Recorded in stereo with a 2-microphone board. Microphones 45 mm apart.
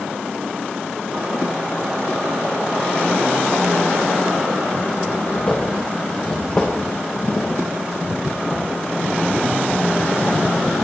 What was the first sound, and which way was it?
Footsteps, 50° left (ahead or behind).